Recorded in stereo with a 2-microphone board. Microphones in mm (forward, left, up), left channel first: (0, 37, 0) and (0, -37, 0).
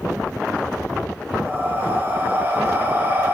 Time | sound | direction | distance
1.5 | breathing | 25° right (ahead or behind) | 1.0 m